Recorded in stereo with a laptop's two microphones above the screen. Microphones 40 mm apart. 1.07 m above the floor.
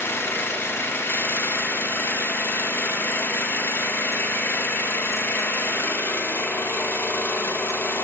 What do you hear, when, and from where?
0.0 s an engine running: 70° left (ahead or behind), 1.1 m